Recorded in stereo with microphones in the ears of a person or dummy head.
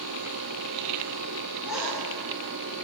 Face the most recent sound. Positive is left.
turn(degrees=-10)  # may be behind; listen again after turning